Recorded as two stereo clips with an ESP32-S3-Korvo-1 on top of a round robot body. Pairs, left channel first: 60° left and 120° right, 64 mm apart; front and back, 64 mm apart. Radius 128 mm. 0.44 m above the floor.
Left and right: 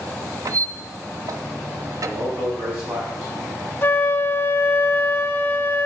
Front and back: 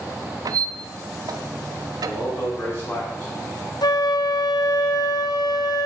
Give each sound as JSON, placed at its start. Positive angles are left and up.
{"t": 0.5, "sound": "a squeak", "azimuth_deg": -155, "distance_m": 0.8}
{"t": 2.0, "sound": "a man speaking", "azimuth_deg": -60, "distance_m": 5.5}
{"t": 3.8, "sound": "a flute", "azimuth_deg": 0, "distance_m": 0.9}